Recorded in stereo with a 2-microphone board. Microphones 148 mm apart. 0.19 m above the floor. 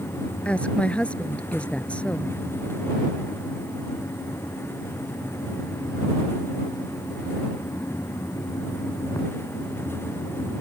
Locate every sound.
0.5 s a woman speaking: 10° left (ahead or behind)